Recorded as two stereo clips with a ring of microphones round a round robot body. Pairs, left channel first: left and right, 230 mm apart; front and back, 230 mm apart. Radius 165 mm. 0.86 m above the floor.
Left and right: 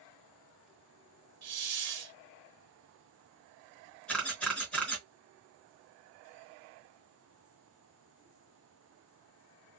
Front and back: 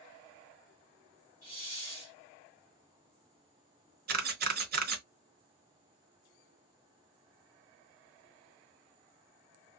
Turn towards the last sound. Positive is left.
turn(degrees=175)